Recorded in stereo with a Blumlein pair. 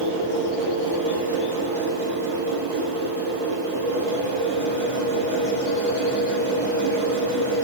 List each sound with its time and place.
0.0 s a machine running: 65° right, 3 m